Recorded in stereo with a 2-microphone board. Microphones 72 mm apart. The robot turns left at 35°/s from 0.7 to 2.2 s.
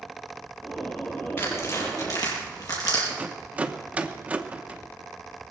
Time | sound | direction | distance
1.4 | tearing paper | 30° left (ahead or behind) | 6 m
3.1 | a rattle | 20° right (ahead or behind) | 1.0 m